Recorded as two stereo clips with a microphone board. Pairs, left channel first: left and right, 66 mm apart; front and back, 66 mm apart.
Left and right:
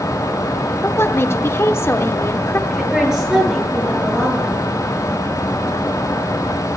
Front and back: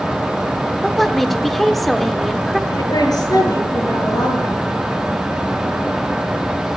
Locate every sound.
0.8 s a woman speaking: 85° left, 0.8 m
2.7 s a woman speaking: 10° right, 6.5 m